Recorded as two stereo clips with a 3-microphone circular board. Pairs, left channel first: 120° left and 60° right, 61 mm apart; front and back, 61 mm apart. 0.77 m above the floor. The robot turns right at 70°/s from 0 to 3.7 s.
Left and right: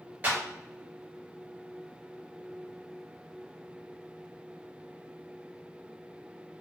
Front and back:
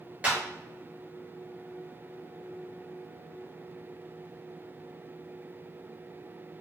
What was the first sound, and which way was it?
A clap, 115° right.